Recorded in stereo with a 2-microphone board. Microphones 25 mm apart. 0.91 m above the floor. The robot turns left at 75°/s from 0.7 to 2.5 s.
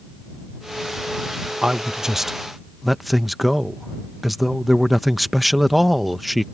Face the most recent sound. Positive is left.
turn(degrees=-175)